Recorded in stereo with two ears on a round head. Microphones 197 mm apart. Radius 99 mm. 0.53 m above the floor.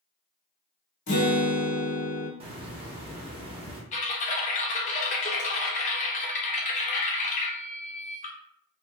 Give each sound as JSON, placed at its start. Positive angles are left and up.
{"t": 1.1, "sound": "a guitar", "side_deg": 40, "distance_m": 1.0}
{"t": 2.4, "sound": "a hiss", "side_deg": -25, "distance_m": 0.6}
{"t": 3.9, "sound": "typing on a keyboard", "side_deg": 35, "distance_m": 0.6}